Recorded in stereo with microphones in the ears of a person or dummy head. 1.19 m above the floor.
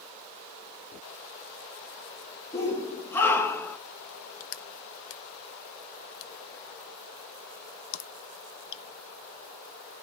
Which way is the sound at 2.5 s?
15° left (ahead or behind).